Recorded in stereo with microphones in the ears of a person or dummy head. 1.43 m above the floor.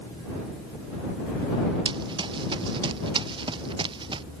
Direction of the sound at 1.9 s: 25° right (ahead or behind).